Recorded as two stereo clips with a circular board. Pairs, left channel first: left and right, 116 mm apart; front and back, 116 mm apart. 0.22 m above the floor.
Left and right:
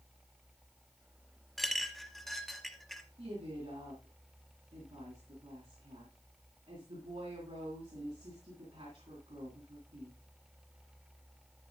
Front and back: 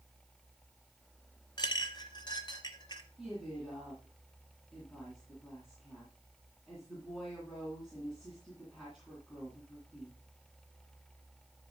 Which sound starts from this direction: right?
A woman speaking, at 3.2 s.